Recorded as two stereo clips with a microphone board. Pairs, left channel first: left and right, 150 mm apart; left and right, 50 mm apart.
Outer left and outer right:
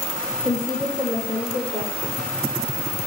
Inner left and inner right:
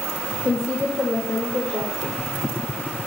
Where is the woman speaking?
55° left (ahead or behind), 4 m.